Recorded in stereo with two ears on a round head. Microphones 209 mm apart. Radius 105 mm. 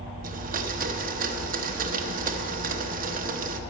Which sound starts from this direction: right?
A blender, at 0.2 s.